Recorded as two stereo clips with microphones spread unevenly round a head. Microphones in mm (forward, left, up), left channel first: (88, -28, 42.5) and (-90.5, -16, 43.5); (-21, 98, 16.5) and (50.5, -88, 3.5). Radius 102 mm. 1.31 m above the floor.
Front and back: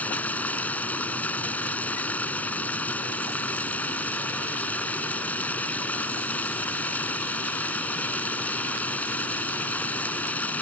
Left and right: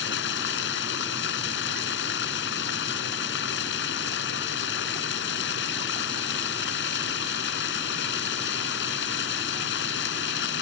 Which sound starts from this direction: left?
Running water, at 0.0 s.